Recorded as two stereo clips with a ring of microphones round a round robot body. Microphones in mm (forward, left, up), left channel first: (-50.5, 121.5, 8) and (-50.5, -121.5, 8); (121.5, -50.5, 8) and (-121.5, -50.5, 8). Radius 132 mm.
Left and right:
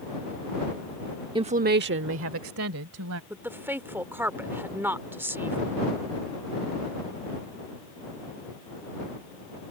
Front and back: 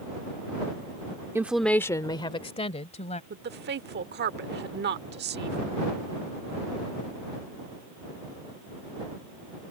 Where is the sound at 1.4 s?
120° right; by 3.2 s 60° right.